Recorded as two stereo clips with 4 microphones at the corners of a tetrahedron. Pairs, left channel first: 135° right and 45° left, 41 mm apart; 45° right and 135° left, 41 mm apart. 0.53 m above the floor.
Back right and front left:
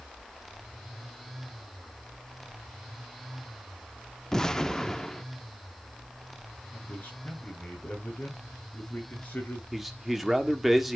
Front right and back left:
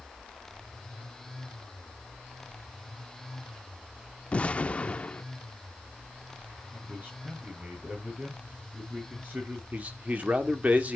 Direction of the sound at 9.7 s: 130° left.